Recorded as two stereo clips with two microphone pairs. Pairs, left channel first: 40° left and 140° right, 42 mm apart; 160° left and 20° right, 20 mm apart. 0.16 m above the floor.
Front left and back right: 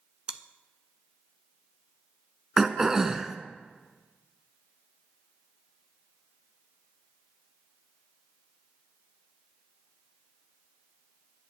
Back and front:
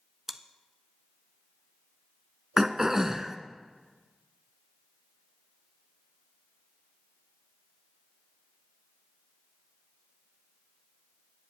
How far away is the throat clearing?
About 0.8 m.